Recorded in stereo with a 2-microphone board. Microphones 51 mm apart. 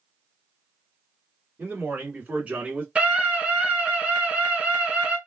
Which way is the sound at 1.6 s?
35° right (ahead or behind).